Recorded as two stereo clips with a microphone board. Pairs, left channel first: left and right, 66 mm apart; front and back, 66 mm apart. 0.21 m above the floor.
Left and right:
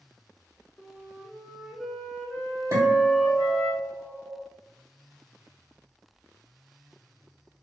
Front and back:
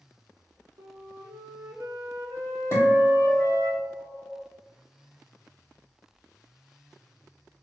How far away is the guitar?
About 1.8 m.